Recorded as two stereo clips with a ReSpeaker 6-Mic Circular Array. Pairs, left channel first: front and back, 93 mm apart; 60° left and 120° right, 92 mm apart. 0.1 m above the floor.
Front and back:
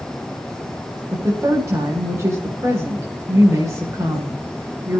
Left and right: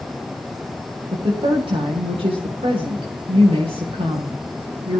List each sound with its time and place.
1.1 s a woman speaking: 120° right, 9.5 m